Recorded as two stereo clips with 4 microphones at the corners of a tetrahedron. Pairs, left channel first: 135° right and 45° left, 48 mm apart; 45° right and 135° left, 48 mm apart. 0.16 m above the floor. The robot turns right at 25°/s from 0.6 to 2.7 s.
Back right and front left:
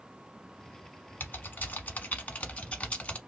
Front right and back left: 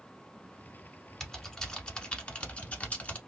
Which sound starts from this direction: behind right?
Typing on a keyboard, at 1.2 s.